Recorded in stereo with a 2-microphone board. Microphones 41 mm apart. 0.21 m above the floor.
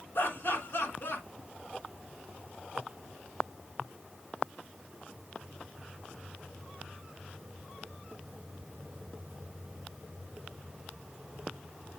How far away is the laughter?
About 3 m.